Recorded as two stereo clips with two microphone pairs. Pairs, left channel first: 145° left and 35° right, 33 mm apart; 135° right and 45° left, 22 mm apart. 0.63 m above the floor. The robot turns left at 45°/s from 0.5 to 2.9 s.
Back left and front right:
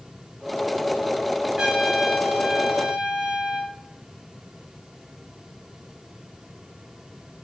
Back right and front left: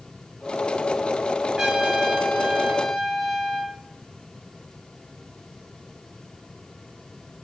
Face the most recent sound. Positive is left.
turn(degrees=-15)